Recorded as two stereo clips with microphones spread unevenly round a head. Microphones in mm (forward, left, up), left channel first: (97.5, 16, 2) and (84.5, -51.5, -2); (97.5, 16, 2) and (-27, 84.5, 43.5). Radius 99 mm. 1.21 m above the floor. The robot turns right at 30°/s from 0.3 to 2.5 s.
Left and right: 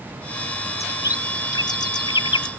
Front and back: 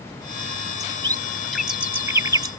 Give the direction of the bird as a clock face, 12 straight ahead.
11 o'clock.